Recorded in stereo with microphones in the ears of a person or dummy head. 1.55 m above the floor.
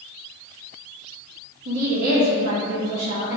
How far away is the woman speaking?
About 2 m.